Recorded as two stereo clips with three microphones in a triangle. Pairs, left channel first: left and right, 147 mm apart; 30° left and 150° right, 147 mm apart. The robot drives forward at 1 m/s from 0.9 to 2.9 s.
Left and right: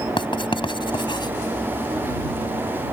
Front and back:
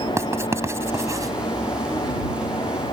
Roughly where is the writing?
Behind left.